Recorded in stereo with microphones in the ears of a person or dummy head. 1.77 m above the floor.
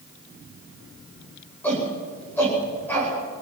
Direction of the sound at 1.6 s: 10° left (ahead or behind).